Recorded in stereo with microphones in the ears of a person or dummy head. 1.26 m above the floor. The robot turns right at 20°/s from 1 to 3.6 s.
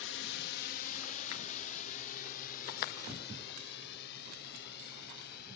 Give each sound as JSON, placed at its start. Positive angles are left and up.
{"t": 0.0, "sound": "a drone", "side_deg": 65}